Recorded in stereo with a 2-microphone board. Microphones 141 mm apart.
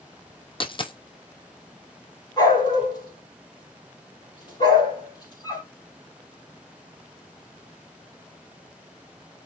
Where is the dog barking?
30° left (ahead or behind), 4 m.